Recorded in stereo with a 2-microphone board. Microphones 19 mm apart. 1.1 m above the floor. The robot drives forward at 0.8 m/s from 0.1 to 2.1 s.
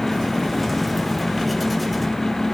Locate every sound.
Only background noise.